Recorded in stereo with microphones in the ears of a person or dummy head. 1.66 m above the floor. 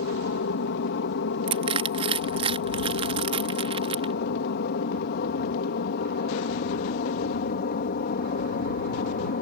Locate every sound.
0.0 s an aircraft: 60° left (ahead or behind); by 9.4 s 50° left (ahead or behind)
1.5 s crushing: 35° right (ahead or behind)